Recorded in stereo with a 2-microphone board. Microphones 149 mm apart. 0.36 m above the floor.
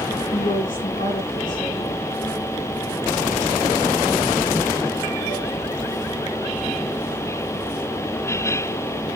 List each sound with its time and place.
0.3 s a woman speaking: 60° left (ahead or behind), 3 m